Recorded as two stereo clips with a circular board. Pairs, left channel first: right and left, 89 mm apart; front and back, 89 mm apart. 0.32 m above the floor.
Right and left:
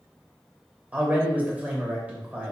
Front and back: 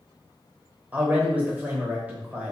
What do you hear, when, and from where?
0.9 s a man speaking: 130° left, 0.9 m